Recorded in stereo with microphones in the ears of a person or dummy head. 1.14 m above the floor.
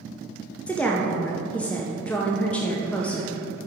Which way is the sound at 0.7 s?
Centre (ahead or behind).